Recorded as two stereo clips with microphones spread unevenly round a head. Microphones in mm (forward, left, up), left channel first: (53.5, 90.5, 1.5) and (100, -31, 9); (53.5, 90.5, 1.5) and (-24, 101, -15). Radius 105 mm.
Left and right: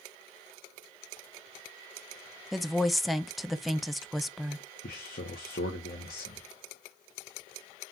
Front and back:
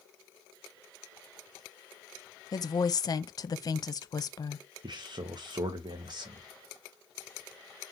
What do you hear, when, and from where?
2.5 s a woman speaking: 20° left, 0.7 m
4.8 s a man speaking: 135° left, 0.8 m